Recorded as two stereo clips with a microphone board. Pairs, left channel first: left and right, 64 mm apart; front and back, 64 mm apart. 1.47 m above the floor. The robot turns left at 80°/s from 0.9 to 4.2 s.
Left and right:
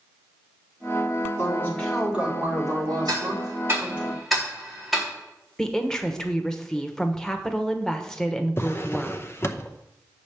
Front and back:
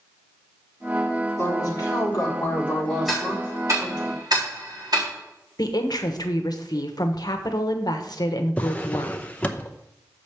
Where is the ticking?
95° right, 3.5 m; by 5.1 s straight behind, 3.5 m.